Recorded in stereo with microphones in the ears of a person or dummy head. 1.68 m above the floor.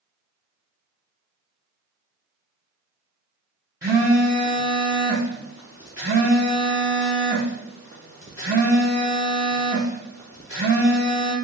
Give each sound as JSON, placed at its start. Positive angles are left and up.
{"t": 3.8, "sound": "a phone buzzing", "side_deg": -15, "distance_m": 0.5}